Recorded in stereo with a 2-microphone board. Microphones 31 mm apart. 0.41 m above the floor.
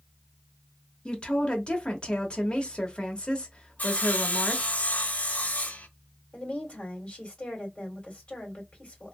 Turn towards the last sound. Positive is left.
turn(degrees=40)  # may be behind; listen again after turning